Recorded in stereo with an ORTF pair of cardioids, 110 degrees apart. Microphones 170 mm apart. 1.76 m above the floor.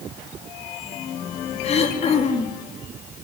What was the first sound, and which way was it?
Throat clearing, 40° left.